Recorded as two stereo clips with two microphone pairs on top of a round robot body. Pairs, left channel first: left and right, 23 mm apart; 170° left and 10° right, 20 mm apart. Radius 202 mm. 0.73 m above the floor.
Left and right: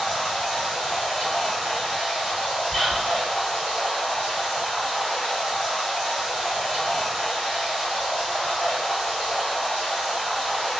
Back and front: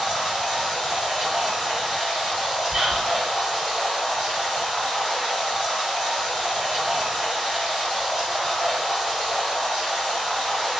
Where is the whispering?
15° left, 1.8 m.